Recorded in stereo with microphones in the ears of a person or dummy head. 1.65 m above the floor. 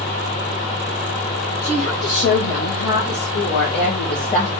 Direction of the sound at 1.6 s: 80° left.